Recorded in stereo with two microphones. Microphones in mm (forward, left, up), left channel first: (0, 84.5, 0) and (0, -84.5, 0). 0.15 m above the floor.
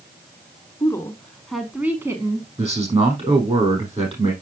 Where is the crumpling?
No crumpling in this recording.